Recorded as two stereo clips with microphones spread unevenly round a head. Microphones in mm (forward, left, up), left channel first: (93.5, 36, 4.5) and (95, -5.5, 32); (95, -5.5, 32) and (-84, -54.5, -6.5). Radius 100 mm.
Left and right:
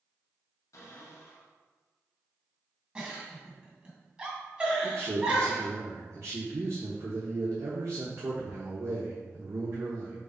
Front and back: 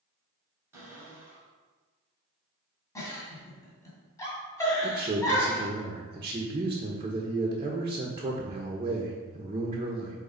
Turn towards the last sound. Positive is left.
turn(degrees=-100)